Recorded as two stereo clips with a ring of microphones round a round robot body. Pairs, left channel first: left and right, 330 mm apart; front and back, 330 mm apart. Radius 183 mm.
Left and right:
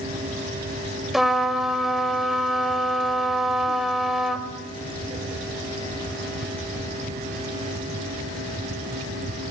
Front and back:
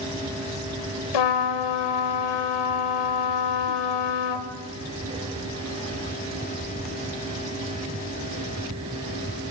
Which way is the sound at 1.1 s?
Straight ahead.